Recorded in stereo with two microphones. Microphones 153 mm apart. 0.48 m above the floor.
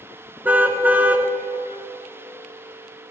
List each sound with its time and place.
0.5 s a car horn: 10° right (ahead or behind), 2 m